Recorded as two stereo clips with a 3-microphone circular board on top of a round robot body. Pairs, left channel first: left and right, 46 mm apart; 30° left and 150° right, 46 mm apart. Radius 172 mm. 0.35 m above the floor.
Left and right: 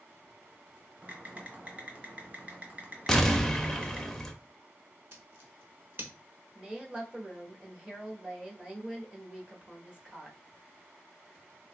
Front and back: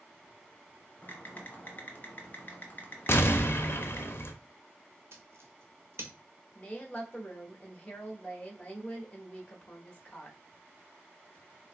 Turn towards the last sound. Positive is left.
turn(degrees=-25)